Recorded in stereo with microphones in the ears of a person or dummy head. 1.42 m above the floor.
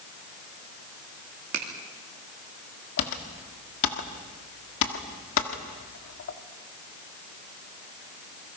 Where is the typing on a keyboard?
65° left (ahead or behind), 1.6 m.